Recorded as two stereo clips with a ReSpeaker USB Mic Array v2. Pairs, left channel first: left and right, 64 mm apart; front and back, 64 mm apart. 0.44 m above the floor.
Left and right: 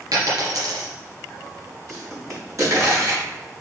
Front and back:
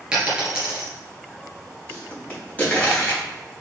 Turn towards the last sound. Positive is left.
turn(degrees=-65)